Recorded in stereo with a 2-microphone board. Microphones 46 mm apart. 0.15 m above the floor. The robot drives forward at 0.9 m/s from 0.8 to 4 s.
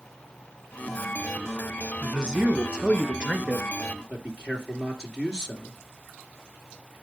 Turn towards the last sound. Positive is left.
turn(degrees=-10)  # may be behind; listen again after turning